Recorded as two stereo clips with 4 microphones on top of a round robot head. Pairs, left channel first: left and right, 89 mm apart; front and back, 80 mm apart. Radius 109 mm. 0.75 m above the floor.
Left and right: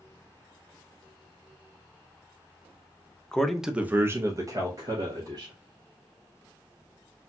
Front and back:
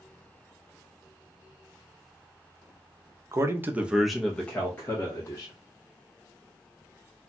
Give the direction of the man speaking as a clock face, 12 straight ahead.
6 o'clock.